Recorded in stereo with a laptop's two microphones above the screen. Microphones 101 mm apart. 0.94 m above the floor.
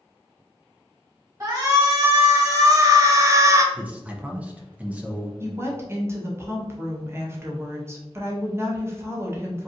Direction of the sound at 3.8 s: 15° right (ahead or behind).